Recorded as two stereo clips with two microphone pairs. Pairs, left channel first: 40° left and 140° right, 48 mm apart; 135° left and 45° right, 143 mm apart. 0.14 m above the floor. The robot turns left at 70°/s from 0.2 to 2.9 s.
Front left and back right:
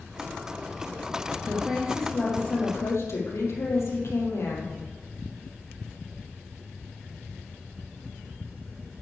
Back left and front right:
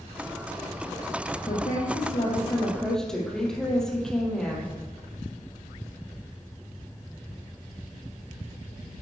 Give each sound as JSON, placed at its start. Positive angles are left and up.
{"t": 1.4, "sound": "a woman speaking", "azimuth_deg": 150, "distance_m": 5.0}